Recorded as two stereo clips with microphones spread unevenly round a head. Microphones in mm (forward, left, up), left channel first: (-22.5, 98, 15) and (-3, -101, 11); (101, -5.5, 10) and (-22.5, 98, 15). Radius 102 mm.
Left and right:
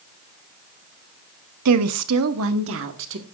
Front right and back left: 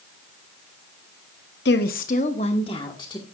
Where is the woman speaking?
85° right, 0.8 m; by 3.2 s 115° right, 1.7 m.